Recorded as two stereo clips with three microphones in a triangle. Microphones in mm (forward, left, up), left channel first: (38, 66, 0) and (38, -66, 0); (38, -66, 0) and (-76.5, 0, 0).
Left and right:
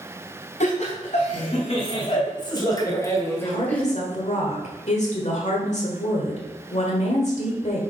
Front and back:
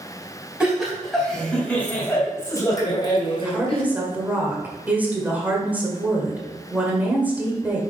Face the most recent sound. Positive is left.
turn(degrees=75)